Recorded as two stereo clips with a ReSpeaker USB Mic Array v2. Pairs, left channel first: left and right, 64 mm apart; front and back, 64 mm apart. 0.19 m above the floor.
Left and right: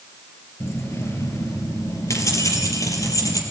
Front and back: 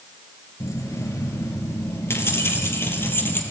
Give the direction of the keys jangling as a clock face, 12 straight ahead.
11 o'clock.